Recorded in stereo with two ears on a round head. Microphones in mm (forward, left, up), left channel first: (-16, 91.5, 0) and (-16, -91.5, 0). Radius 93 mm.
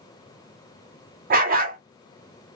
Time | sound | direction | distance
1.3 | a dog barking | 45° right (ahead or behind) | 1.1 m